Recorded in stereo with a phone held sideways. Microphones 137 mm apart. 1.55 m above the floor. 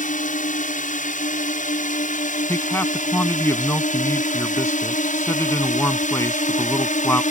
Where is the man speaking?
20° left (ahead or behind).